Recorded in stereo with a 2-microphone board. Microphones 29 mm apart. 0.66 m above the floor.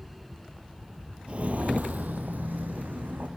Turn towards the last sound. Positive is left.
turn(degrees=-70)  # may be behind; listen again after turning